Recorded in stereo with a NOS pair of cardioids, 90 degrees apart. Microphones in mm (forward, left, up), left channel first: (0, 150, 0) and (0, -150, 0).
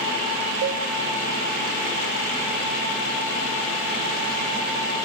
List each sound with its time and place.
0.6 s a cowbell: 65° right, 1.7 m